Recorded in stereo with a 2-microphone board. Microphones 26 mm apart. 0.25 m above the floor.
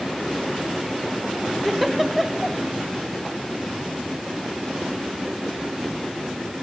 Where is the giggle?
Centre (ahead or behind), 1.1 m.